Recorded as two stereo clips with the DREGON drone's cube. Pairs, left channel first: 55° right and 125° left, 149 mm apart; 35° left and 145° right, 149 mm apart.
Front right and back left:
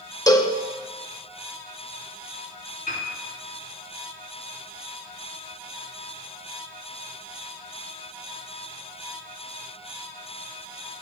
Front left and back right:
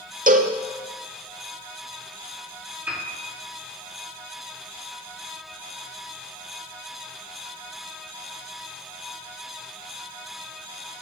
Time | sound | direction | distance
0.3 | a cowbell | 120° right | 0.6 m
2.9 | a piano | 70° right | 4 m